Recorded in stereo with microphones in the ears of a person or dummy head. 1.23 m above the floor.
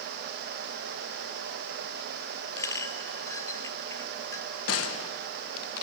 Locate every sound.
2.6 s a clink: 20° left (ahead or behind), 0.9 m
4.7 s a gunshot: 75° left (ahead or behind), 0.8 m